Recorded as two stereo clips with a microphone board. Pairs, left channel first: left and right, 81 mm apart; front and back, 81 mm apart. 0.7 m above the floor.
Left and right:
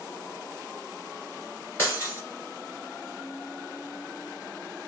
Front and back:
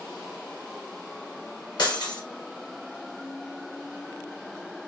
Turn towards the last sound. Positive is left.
turn(degrees=30)